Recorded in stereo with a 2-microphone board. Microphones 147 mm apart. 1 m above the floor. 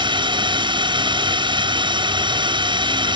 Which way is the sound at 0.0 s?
30° right (ahead or behind).